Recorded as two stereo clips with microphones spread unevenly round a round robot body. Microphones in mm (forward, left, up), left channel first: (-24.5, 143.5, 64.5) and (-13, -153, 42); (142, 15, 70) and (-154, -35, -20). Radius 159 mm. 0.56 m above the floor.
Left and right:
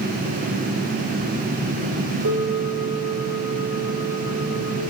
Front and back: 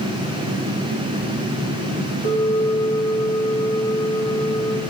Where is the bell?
65° right, 2.0 m.